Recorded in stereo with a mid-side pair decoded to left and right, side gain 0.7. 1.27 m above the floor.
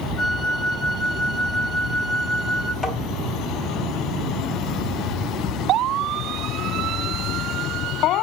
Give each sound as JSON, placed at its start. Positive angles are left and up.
{"t": 0.2, "sound": "a flute", "azimuth_deg": 30, "distance_m": 1.7}
{"t": 2.8, "sound": "tapping", "azimuth_deg": 15, "distance_m": 3.0}